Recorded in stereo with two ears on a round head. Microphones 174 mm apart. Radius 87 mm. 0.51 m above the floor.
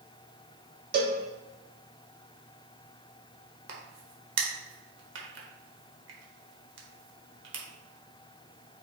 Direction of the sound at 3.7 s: 65° right (ahead or behind).